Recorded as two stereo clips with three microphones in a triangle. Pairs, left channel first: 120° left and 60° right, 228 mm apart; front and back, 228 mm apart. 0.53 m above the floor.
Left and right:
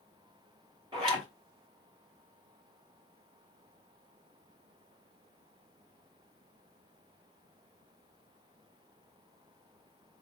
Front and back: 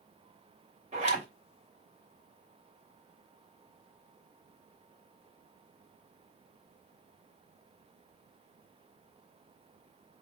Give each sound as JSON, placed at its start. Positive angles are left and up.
{"t": 0.9, "sound": "a zipper", "azimuth_deg": -125, "distance_m": 3.0}